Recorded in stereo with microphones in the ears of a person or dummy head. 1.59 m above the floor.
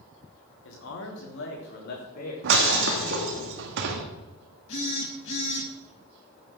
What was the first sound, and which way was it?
A man speaking, 80° left.